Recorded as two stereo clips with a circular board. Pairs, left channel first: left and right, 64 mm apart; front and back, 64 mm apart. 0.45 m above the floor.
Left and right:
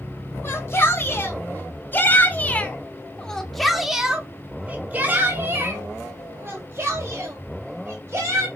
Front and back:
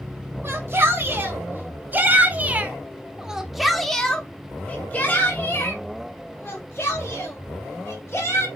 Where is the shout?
135° left, 2.5 m; by 8.5 s 45° right, 3.5 m.